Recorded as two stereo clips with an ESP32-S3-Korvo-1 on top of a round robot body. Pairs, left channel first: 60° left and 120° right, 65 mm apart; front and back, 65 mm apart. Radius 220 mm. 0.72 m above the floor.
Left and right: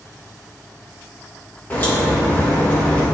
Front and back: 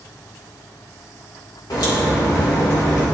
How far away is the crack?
About 2 m.